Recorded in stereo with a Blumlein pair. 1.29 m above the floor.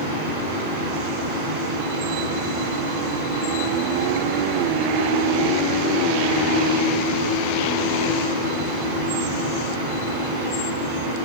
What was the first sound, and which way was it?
A fan, 50° right.